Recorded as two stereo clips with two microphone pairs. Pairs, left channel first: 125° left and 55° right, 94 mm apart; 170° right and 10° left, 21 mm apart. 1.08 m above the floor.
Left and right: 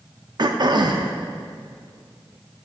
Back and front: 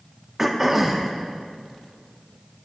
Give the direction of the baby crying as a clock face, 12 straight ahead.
No baby crying in this recording.